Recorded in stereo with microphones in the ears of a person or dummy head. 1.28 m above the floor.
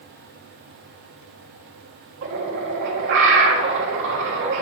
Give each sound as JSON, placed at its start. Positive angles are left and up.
{"t": 2.2, "sound": "a bird", "side_deg": -60, "distance_m": 1.6}